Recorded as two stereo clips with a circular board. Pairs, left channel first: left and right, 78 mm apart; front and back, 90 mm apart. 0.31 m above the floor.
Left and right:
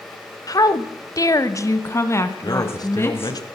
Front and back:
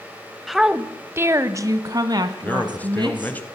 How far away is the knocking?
No knocking in this recording.